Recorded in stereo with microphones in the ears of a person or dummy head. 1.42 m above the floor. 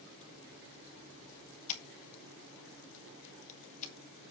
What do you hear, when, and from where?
1.7 s scissors: 35° left (ahead or behind), 1.2 m